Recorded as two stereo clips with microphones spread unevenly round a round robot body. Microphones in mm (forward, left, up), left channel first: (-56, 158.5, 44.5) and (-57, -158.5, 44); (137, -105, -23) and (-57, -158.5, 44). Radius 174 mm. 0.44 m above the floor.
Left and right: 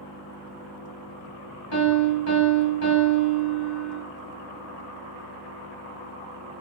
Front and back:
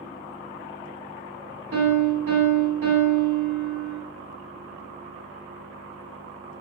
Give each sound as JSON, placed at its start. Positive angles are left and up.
{"t": 1.7, "sound": "a piano", "azimuth_deg": 135, "distance_m": 1.2}